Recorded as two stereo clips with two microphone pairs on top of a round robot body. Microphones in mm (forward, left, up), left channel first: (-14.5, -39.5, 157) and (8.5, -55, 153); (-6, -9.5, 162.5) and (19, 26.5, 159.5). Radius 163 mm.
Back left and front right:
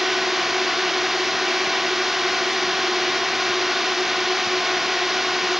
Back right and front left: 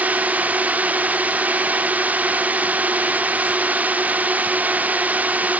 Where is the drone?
35° left.